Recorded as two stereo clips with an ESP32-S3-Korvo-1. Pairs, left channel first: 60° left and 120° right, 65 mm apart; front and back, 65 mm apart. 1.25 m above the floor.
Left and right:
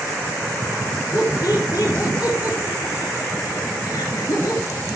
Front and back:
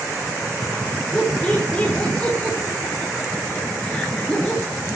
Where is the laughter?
70° left, 3.5 m.